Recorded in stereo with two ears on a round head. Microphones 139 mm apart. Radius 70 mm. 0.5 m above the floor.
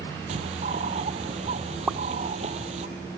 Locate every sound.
0.3 s a bird: 40° right (ahead or behind)
1.9 s a pop: 5° right (ahead or behind)